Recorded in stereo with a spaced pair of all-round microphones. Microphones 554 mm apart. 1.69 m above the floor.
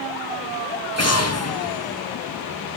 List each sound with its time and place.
1.0 s an explosion: 25° left (ahead or behind), 0.9 m